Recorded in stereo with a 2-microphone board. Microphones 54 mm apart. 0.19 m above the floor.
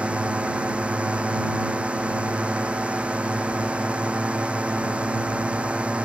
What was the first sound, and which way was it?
A drone, 20° right (ahead or behind).